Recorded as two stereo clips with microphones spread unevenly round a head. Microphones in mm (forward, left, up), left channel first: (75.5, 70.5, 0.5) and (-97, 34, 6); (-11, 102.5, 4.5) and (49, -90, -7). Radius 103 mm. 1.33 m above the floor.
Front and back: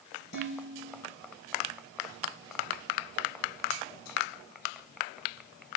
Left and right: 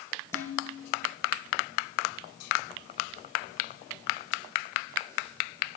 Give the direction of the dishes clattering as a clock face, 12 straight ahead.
11 o'clock.